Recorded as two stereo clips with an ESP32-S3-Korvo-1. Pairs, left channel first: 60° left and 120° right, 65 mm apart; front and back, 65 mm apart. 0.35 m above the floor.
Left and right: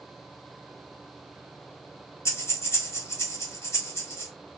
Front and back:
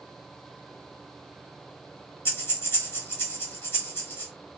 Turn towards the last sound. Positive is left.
turn(degrees=40)